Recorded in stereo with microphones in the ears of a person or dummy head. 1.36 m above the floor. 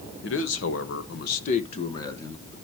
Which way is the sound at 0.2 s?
65° left (ahead or behind).